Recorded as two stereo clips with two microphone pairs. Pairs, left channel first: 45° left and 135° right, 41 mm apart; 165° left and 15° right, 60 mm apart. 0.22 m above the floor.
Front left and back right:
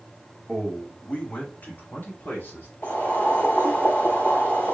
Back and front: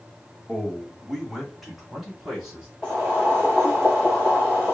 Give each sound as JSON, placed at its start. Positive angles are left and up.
{"t": 0.5, "sound": "a man speaking", "azimuth_deg": 110, "distance_m": 1.1}
{"t": 2.8, "sound": "boiling", "azimuth_deg": 60, "distance_m": 3.0}